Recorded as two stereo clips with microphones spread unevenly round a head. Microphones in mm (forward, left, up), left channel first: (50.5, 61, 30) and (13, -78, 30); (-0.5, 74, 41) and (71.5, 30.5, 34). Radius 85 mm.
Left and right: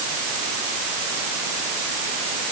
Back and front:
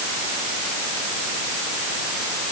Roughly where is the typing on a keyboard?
I don't hear typing on a keyboard.